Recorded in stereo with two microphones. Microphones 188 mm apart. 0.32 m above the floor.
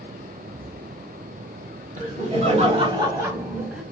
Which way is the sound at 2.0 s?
45° right (ahead or behind).